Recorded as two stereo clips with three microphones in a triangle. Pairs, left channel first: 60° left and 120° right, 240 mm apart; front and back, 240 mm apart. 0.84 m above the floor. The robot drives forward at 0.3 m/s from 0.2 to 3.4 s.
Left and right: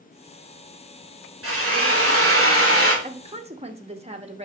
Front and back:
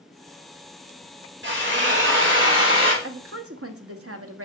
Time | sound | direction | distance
1.4 | a drill | 140° right | 2 m
3.0 | a woman speaking | straight behind | 0.7 m